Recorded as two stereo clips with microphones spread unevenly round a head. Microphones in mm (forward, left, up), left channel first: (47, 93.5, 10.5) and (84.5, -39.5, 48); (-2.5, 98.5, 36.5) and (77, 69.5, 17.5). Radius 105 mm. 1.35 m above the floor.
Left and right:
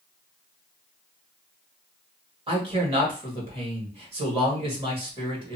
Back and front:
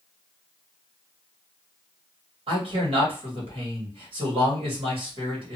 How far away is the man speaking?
About 1.6 m.